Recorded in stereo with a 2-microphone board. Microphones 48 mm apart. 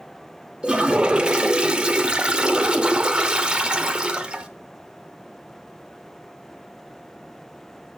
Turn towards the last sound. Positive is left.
turn(degrees=-20)  # may be behind; listen again after turning